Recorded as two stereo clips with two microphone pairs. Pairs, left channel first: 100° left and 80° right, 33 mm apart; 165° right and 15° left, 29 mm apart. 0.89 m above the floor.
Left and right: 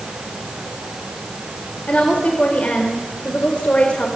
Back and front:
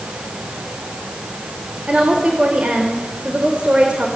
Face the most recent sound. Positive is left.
turn(degrees=60)